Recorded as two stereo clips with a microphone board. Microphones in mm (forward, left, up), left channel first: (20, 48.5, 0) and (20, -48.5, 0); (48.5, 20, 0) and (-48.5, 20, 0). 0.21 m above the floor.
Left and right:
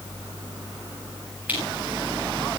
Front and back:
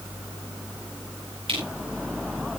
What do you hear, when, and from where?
1.5 s crushing: 165° right, 7 m